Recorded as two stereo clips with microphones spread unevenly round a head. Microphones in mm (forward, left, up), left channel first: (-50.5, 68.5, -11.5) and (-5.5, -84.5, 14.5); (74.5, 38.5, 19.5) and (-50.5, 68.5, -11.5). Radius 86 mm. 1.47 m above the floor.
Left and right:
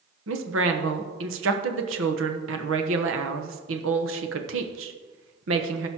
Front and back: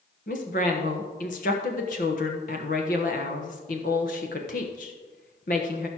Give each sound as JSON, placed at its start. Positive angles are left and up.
{"t": 0.3, "sound": "a woman speaking", "azimuth_deg": -60, "distance_m": 1.2}